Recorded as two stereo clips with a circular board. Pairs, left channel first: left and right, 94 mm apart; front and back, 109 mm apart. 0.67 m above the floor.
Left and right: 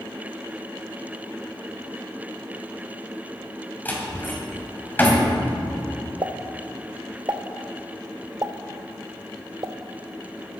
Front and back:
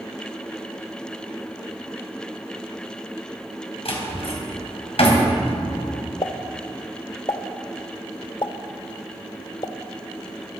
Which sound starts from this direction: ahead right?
A pop, at 6.2 s.